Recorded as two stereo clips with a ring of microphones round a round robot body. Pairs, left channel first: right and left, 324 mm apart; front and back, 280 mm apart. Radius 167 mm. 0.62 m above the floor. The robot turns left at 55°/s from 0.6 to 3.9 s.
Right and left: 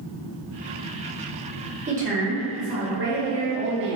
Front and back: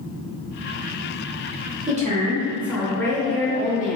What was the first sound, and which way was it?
A woman speaking, 145° left.